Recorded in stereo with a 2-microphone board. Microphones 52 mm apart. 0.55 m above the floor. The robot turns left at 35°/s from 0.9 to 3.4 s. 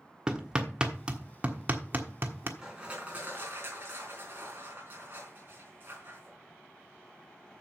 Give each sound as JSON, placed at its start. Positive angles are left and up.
{"t": 0.3, "sound": "hammering", "side_deg": -15, "distance_m": 1.3}
{"t": 2.6, "sound": "crushing", "side_deg": -10, "distance_m": 3.5}